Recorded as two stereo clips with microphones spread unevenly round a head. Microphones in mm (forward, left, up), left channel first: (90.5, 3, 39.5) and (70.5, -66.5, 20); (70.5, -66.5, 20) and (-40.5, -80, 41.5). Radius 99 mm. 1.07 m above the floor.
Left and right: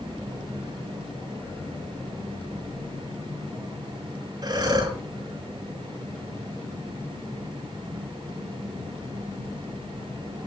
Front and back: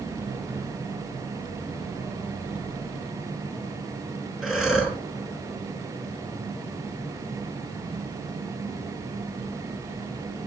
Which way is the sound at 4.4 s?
85° right.